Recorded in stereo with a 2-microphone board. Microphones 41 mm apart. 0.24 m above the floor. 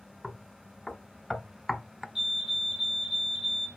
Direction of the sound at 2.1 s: 15° right (ahead or behind).